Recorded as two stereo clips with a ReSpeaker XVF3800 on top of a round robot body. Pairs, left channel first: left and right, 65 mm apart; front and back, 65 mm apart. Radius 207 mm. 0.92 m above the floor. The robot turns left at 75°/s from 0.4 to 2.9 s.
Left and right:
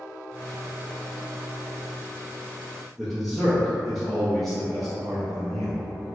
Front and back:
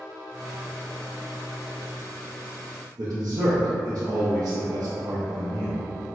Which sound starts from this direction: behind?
A man speaking, at 3.0 s.